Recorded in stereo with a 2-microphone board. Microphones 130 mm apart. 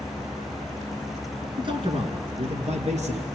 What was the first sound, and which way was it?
A man speaking, 40° right (ahead or behind).